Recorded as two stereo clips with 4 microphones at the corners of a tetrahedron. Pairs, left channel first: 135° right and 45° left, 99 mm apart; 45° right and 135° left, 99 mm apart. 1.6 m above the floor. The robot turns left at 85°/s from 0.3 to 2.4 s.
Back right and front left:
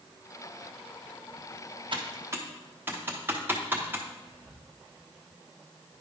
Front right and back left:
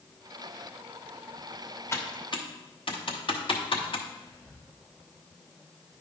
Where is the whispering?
115° right, 4.5 m.